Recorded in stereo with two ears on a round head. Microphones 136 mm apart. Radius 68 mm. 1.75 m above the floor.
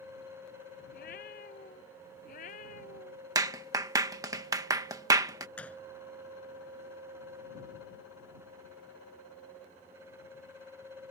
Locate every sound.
0.9 s a cat meowing: 65° left (ahead or behind); by 3.2 s 50° left (ahead or behind)
3.4 s a clap: 25° right (ahead or behind)
5.6 s a gunshot: 10° left (ahead or behind)